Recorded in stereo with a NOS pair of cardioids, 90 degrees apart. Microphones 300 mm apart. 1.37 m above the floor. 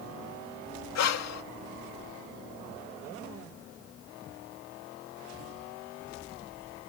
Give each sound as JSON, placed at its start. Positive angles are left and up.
{"t": 0.9, "sound": "breathing", "azimuth_deg": 60}